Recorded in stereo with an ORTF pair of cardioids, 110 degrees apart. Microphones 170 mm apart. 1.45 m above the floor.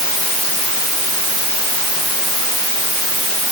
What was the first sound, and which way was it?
Only background noise.